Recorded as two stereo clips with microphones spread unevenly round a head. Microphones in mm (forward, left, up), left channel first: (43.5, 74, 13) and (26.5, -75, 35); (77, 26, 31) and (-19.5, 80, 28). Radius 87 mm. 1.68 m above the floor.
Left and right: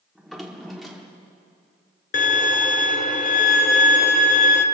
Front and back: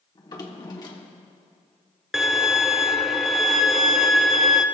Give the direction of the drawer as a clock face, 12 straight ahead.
1 o'clock.